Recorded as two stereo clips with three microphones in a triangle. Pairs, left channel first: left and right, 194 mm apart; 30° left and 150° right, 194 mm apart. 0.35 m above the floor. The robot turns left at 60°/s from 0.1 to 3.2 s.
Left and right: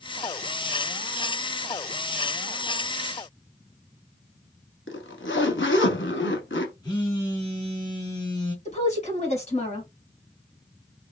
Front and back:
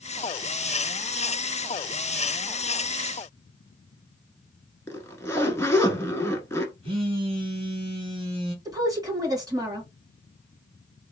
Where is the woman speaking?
140° left, 2 m.